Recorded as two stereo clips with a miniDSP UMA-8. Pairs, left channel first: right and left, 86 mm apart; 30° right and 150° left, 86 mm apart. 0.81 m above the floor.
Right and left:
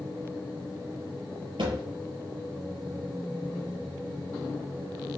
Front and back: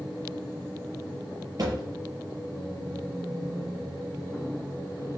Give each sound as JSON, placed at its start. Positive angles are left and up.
{"t": 1.6, "sound": "a thud", "azimuth_deg": 110, "distance_m": 5.0}